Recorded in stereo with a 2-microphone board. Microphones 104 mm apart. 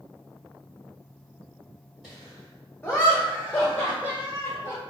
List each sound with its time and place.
2.0 s laughter: 5° left (ahead or behind), 1.6 m; by 4.8 s 25° left (ahead or behind), 1.6 m